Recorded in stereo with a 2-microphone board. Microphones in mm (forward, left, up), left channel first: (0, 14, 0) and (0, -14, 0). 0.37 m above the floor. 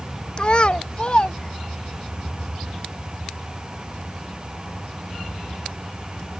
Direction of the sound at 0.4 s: 35° left (ahead or behind).